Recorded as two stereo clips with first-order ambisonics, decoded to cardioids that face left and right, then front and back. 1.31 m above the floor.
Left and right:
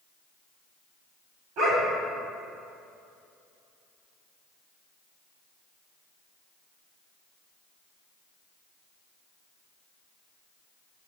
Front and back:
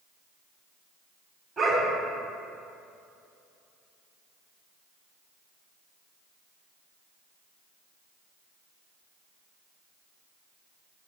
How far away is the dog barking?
About 2 m.